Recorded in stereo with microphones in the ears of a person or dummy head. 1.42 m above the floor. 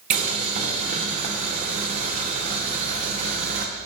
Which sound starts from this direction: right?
Boiling, at 0.1 s.